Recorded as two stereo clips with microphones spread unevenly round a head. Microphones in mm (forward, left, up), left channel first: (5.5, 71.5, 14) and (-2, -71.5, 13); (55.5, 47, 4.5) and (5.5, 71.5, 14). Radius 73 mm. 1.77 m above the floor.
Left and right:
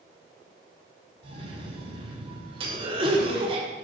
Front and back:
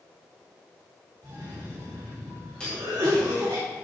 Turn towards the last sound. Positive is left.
turn(degrees=-115)